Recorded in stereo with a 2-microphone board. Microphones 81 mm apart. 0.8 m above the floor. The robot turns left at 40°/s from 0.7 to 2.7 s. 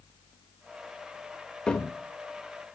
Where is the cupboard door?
10° left (ahead or behind), 1.1 m; by 2.8 s 50° left (ahead or behind), 1.1 m.